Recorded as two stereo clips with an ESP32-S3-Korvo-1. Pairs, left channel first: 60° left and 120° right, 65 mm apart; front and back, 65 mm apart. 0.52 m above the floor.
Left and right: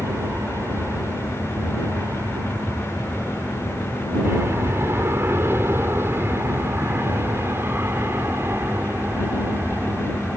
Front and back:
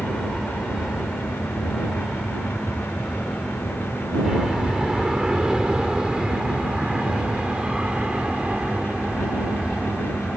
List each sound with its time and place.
0.0 s an aircraft: 100° right; by 10.4 s 120° right